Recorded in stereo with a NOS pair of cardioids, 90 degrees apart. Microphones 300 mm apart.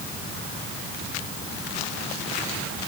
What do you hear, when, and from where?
Only background noise.